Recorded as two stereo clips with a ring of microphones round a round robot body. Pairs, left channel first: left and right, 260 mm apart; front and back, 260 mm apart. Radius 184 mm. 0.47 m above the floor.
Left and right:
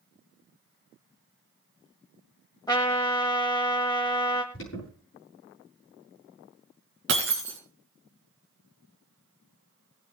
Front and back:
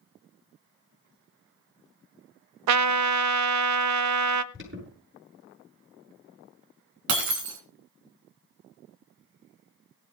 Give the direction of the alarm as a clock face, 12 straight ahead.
7 o'clock.